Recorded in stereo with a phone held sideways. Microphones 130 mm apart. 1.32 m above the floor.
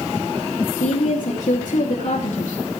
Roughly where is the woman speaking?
Left.